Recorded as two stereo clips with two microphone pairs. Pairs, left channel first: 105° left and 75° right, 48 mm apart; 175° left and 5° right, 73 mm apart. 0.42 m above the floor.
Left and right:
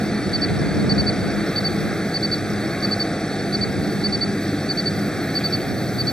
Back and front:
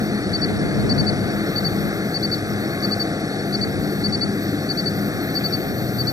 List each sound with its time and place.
0.0 s an insect: 30° left